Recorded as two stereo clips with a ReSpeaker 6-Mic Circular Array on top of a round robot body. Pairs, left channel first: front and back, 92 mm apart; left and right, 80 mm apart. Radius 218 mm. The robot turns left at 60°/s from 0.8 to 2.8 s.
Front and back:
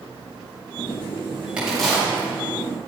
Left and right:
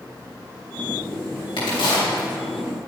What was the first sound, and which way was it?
A crack, 100° left.